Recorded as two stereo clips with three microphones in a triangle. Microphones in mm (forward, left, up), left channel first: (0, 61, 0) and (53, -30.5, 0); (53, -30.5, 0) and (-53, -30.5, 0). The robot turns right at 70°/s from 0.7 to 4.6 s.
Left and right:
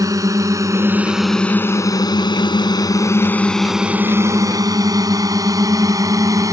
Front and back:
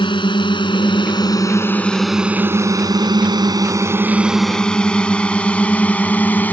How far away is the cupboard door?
I don't hear a cupboard door.